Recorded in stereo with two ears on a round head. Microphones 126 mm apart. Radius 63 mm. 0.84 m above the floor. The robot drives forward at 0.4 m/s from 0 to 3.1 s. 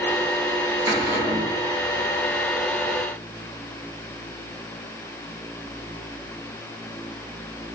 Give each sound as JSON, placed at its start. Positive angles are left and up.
{"t": 0.9, "sound": "a cupboard door", "side_deg": -20, "distance_m": 1.1}